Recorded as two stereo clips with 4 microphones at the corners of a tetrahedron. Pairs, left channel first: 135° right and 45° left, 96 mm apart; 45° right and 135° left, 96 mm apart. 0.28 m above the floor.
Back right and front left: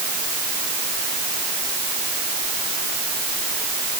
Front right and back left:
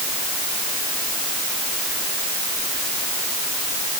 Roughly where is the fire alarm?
No fire alarm in this recording.